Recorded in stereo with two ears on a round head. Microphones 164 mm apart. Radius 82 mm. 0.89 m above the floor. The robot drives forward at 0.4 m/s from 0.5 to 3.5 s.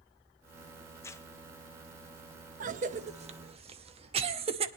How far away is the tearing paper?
About 1.0 m.